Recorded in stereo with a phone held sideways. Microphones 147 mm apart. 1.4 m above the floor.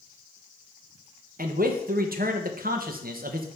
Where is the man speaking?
75° right (ahead or behind), 0.9 m.